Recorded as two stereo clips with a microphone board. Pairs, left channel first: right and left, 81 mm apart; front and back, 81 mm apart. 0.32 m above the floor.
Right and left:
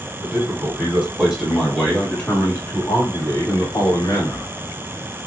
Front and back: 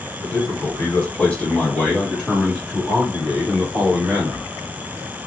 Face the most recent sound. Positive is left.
turn(degrees=-115)